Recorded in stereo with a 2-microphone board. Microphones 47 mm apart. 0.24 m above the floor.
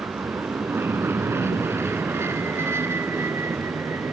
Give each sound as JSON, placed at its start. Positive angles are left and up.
{"t": 0.0, "sound": "an aircraft", "side_deg": -60}